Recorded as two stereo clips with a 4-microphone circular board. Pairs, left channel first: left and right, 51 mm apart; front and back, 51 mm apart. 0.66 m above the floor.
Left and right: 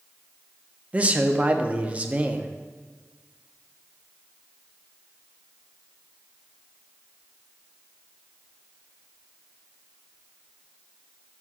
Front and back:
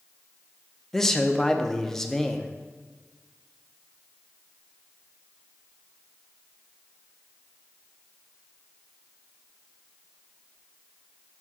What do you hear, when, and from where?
0.9 s a man speaking: 70° right, 0.5 m